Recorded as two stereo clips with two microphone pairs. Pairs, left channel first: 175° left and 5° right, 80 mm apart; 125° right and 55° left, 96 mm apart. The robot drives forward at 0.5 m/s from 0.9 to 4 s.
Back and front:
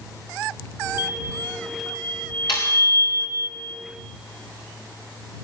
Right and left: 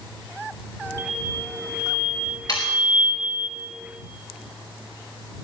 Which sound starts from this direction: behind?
Sawing, at 2.5 s.